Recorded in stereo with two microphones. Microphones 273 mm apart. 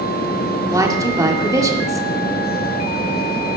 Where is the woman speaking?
10° right (ahead or behind), 2.5 m.